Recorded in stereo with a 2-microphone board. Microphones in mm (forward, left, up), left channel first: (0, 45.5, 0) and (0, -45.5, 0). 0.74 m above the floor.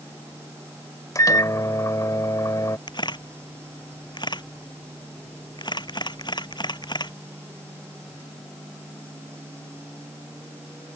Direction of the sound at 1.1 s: 35° left (ahead or behind).